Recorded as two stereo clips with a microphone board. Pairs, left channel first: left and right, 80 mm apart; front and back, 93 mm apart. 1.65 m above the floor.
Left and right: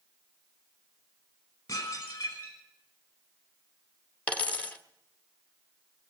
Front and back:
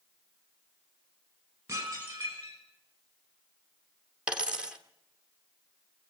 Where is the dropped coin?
125° left, 1.3 m.